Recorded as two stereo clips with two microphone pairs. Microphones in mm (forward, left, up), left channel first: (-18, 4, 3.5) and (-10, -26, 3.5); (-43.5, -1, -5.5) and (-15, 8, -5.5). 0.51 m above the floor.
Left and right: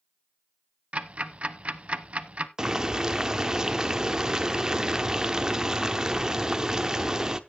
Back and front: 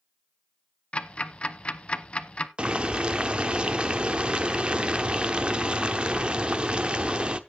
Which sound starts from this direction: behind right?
Ticking, at 0.9 s.